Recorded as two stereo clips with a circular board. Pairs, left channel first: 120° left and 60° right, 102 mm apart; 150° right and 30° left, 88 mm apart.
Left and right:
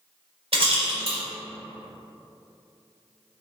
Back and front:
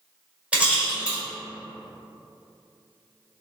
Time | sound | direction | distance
0.5 | a rattle | 45° right | 1.4 m